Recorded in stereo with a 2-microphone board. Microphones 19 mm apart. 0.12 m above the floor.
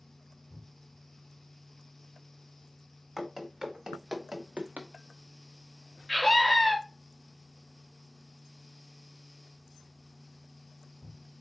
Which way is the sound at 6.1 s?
10° left (ahead or behind).